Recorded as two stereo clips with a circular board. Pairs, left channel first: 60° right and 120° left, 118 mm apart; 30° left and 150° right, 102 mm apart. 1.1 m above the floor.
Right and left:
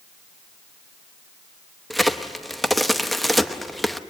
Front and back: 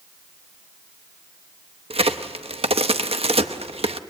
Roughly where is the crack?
Behind right.